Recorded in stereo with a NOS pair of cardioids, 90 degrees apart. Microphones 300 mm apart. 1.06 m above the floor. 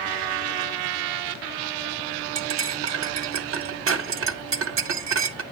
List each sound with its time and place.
2.4 s cutlery clinking: 45° right, 0.7 m